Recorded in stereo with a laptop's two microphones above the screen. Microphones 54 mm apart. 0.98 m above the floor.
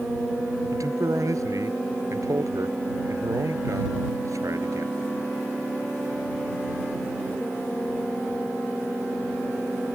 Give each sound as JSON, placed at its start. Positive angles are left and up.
{"t": 0.7, "sound": "a man speaking", "side_deg": -90}